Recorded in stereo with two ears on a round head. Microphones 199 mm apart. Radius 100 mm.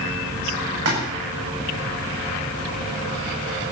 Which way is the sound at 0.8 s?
85° right.